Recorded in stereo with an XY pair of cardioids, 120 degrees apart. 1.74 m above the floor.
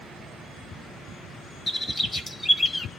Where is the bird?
30° left, 1.5 m.